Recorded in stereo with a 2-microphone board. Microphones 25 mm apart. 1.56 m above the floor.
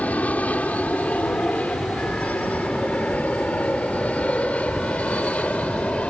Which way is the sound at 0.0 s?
75° left (ahead or behind).